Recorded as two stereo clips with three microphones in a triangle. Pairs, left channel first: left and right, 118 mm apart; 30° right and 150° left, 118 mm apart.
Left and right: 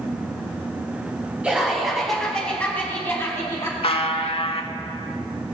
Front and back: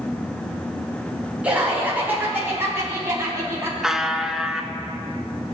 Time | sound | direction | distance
1.4 | laughter | 150° right | 1.5 m
3.8 | a buzzer | 65° left | 0.6 m